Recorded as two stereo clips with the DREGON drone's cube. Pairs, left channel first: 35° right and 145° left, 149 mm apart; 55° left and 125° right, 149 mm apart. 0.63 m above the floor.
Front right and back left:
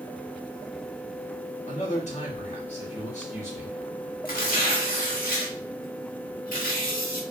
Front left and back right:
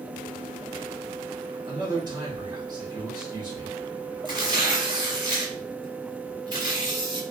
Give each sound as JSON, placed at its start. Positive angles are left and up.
{"t": 1.7, "sound": "a man speaking", "azimuth_deg": -65, "distance_m": 1.3}
{"t": 4.2, "sound": "tearing paper", "azimuth_deg": -65, "distance_m": 1.0}